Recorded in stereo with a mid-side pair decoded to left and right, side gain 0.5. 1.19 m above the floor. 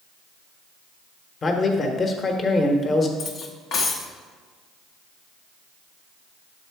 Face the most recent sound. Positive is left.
turn(degrees=60)